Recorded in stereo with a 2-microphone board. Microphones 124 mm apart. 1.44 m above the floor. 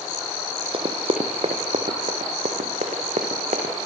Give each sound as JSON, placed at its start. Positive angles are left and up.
{"t": 0.7, "sound": "running footsteps", "side_deg": -45, "distance_m": 3.0}